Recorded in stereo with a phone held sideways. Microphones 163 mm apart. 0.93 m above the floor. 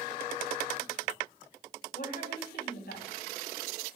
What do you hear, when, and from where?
1.9 s a woman speaking: 80° left, 7 m